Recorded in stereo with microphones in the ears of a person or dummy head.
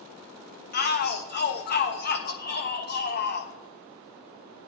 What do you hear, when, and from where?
0.7 s a shout: 50° left (ahead or behind), 1.2 m